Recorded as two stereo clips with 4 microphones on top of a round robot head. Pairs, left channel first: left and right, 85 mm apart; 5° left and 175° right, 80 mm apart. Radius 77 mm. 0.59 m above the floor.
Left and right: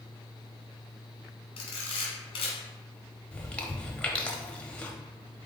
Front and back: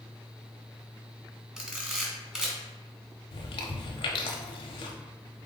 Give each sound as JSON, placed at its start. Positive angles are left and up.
{"t": 1.6, "sound": "a camera shutter", "azimuth_deg": 110, "distance_m": 1.6}
{"t": 3.3, "sound": "chewing", "azimuth_deg": 10, "distance_m": 0.6}